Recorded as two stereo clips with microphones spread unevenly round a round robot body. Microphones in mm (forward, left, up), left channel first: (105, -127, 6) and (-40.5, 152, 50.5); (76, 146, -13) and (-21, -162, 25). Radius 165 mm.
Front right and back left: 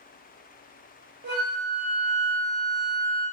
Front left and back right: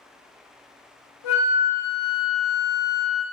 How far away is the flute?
About 1.0 m.